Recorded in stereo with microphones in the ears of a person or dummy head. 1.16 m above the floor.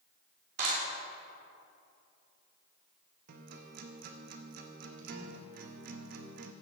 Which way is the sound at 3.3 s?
55° right (ahead or behind).